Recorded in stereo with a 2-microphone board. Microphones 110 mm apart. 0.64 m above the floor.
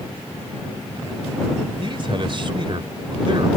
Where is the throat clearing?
I don't hear throat clearing.